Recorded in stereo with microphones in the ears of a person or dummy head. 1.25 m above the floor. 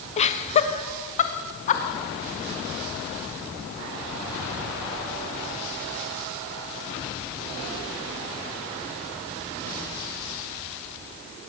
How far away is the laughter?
About 1.0 m.